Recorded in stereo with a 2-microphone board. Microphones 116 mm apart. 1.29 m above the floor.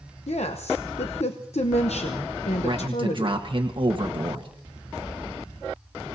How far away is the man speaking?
About 1.4 m.